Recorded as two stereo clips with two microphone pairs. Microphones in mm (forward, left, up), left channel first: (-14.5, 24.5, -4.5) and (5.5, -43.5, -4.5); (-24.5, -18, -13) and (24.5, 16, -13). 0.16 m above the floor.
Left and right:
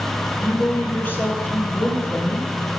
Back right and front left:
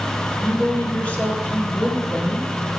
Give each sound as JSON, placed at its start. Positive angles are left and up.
{"t": 0.4, "sound": "a woman speaking", "azimuth_deg": 155, "distance_m": 2.0}